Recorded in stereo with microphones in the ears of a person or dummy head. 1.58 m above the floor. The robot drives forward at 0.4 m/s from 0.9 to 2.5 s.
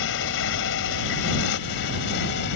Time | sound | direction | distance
0.0 | a motorcycle | 70° left (ahead or behind) | ?